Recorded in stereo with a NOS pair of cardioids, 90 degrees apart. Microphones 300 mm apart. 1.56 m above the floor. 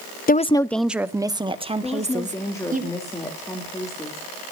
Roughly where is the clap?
I don't hear a clap.